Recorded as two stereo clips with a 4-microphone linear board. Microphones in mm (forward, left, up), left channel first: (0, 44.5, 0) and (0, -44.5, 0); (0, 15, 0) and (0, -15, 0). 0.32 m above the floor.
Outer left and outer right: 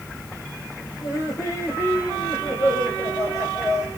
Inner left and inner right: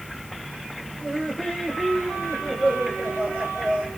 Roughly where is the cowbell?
No cowbell in this recording.